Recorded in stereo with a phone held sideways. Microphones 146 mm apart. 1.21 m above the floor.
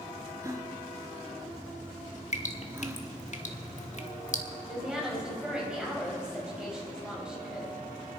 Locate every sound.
0.4 s a gasp: 20° right (ahead or behind), 1.2 m
2.3 s dripping: 55° left (ahead or behind), 1.3 m
4.7 s a woman speaking: 5° right (ahead or behind), 5.5 m